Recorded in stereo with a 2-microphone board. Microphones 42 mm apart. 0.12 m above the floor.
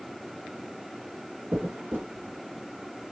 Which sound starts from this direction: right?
A dropped coin, at 1.5 s.